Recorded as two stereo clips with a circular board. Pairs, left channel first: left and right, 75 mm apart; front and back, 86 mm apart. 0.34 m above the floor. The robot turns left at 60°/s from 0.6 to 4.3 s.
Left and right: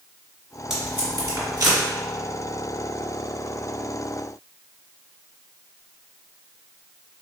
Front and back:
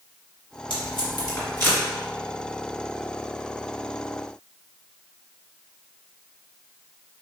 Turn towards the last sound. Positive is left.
turn(degrees=140)